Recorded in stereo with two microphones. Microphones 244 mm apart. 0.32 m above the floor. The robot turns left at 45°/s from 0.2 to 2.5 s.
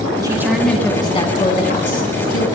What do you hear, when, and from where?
0.2 s a woman speaking: 160° right, 3 m; by 2.5 s 95° left, 3 m